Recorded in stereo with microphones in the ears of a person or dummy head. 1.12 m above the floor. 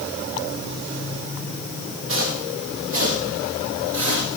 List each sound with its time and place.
2.1 s footsteps: 75° right (ahead or behind), 5 m